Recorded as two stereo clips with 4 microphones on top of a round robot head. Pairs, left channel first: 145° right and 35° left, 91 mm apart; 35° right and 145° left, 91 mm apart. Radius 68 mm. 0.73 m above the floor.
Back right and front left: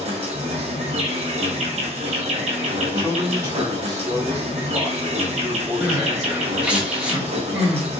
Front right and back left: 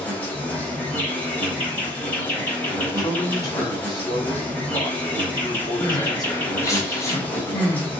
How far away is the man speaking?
About 1.8 m.